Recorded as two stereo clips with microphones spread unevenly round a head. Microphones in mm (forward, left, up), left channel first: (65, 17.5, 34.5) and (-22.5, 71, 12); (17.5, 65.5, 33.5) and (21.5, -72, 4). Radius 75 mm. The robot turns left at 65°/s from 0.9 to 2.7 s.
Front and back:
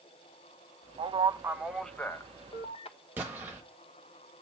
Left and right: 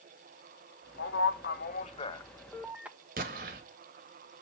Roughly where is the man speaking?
Left.